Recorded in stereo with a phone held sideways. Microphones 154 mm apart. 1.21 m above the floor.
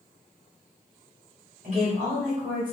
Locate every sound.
1.6 s a woman speaking: 50° right (ahead or behind), 1.3 m; by 2.7 s 30° right (ahead or behind), 1.5 m